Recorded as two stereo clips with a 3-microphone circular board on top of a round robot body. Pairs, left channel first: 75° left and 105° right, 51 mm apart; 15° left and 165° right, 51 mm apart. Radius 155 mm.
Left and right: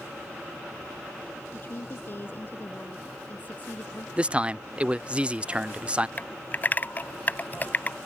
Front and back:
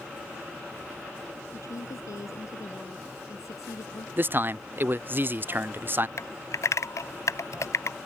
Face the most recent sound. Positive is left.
turn(degrees=20)